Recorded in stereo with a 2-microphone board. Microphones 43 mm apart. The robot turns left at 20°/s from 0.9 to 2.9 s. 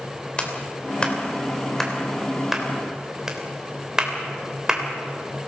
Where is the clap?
25° left (ahead or behind), 3 m; by 4.8 s 15° right (ahead or behind), 3 m.